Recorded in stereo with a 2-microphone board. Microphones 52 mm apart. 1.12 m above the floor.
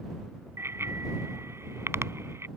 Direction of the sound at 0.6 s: 55° right (ahead or behind).